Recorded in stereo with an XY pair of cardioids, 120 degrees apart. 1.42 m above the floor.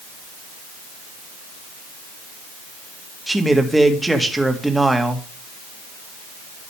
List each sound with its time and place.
3.3 s a man speaking: 5° right, 2 m